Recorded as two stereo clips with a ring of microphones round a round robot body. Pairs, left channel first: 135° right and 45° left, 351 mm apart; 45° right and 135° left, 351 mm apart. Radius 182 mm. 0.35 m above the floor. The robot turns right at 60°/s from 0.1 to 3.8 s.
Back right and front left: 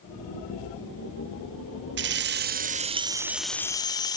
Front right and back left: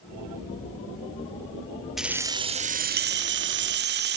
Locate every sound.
2.0 s keys jangling: 45° left, 0.5 m; by 4.2 s 155° left, 0.5 m